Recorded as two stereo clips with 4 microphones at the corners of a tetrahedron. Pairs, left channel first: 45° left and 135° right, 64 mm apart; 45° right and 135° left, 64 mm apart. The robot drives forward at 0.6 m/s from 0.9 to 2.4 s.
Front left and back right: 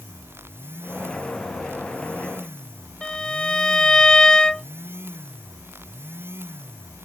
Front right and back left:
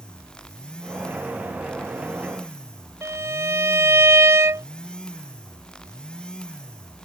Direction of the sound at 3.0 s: 120° left.